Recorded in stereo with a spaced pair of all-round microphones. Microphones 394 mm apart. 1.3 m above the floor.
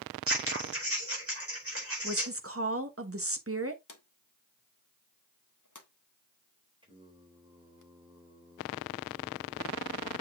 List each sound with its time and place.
0.3 s scissors: 35° right (ahead or behind), 4.5 m
2.0 s a woman speaking: 35° right (ahead or behind), 1.4 m
3.9 s a drawer: 50° left (ahead or behind), 1.3 m
6.8 s singing: 15° right (ahead or behind), 3 m